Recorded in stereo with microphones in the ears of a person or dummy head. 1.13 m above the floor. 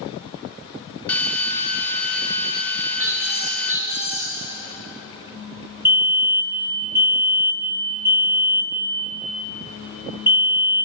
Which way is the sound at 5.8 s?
10° right (ahead or behind).